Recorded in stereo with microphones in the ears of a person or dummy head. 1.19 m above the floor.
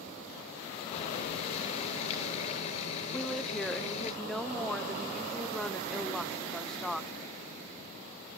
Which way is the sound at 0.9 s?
35° left (ahead or behind).